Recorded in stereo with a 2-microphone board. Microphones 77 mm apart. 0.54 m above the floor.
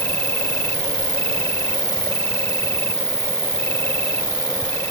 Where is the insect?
25° left (ahead or behind).